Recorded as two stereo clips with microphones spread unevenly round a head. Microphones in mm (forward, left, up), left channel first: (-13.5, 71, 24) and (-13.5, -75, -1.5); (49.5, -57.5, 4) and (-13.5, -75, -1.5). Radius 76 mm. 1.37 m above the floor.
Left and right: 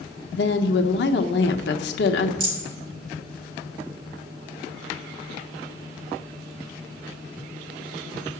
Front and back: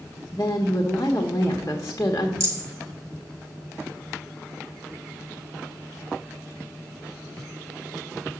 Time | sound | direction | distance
0.3 | a woman speaking | 85° left | 1.0 m
2.4 | a rattle | 125° right | 5 m